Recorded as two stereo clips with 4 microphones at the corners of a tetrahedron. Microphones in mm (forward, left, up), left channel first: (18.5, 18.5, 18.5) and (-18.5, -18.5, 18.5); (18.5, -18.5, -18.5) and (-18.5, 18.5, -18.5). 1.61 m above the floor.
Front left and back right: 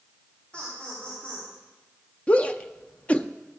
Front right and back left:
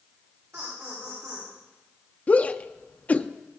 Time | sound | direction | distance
0.5 | laughter | 105° left | 5 m
2.3 | a shout | 5° right | 0.6 m